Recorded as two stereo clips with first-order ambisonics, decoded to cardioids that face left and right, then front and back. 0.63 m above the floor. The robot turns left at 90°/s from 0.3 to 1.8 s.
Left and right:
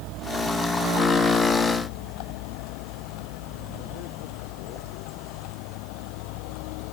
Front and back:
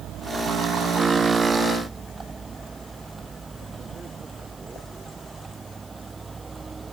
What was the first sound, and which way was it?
A vehicle, 125° right.